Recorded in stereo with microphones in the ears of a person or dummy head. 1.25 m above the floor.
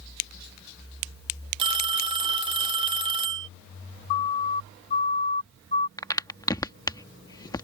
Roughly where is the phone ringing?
Right.